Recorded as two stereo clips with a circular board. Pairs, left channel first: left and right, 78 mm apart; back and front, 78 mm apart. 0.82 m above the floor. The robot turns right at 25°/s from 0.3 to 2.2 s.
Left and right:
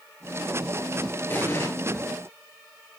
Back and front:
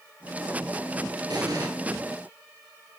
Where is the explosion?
30° left, 4 m; by 1.7 s 40° left, 4 m.